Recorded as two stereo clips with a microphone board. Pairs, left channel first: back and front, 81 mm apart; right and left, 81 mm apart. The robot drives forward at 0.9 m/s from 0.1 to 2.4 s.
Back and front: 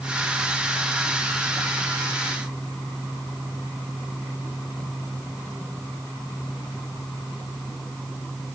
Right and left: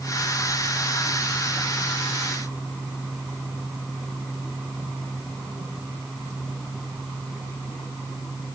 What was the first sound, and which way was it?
Only background noise.